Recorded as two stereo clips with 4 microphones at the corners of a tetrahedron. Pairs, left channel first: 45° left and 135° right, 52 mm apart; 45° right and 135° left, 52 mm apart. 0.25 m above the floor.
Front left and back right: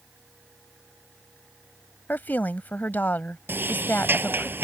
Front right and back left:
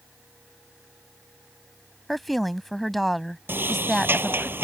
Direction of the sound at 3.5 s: Straight behind.